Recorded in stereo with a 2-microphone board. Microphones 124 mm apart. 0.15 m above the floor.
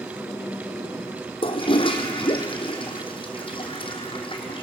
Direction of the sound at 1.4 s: 40° left (ahead or behind).